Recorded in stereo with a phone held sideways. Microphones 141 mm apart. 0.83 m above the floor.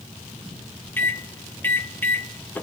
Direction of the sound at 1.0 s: 15° left (ahead or behind).